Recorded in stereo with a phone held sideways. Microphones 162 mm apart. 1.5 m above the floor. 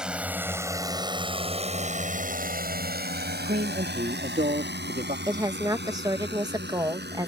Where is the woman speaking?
20° right (ahead or behind).